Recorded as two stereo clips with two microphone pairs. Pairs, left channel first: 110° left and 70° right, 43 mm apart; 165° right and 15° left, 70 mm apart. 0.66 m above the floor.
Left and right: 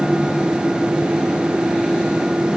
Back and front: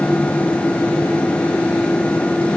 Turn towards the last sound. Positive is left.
No sound to turn to.